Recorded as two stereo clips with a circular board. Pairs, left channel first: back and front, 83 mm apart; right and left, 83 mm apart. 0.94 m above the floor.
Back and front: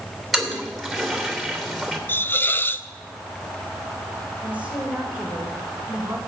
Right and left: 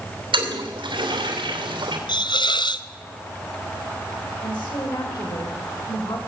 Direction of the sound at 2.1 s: 115° right.